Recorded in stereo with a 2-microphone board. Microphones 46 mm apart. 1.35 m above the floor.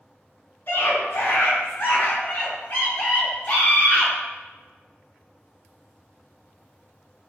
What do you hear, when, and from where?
0.7 s a scream: 50° left (ahead or behind), 3 m; by 4.1 s 25° left (ahead or behind), 5.5 m